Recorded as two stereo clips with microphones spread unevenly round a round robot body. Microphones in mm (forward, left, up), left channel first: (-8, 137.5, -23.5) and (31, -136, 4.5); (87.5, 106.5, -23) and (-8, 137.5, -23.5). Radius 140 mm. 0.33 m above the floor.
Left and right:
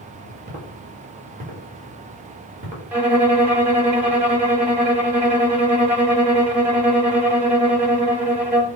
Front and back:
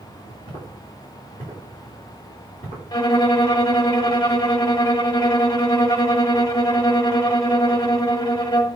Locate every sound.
0.5 s footsteps: 145° right, 3 m
2.9 s a violin: 5° left, 1.1 m